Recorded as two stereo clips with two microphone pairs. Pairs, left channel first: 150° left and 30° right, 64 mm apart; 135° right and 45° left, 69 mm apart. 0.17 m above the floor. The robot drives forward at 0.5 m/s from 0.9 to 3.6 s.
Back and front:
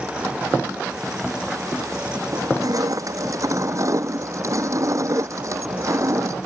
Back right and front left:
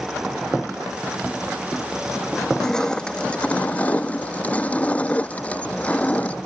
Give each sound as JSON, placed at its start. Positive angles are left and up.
{"t": 2.3, "sound": "crushing", "azimuth_deg": -50}